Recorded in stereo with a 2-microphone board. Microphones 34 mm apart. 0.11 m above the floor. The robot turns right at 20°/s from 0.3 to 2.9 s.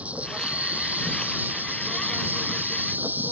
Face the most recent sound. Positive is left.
turn(degrees=-85)